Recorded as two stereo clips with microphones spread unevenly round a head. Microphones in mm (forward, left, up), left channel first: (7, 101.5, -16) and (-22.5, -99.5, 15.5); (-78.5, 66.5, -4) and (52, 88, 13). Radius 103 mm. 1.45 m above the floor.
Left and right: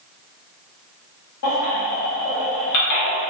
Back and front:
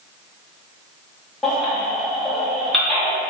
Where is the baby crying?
100° left, 1.4 m.